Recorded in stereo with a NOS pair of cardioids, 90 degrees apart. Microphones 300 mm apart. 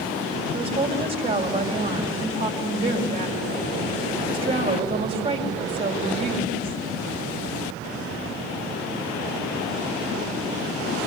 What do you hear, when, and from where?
0.5 s a woman speaking: 20° right, 4.5 m